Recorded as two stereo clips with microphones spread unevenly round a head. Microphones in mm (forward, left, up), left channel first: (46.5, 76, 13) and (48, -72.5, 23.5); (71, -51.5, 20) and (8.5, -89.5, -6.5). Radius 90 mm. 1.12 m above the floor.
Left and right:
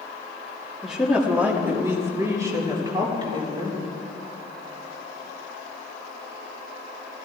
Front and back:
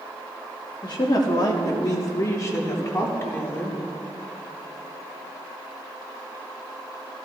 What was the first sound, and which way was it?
A woman speaking, straight ahead.